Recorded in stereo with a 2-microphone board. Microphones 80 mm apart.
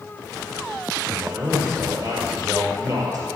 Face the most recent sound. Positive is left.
turn(degrees=-45)  # may be behind; listen again after turning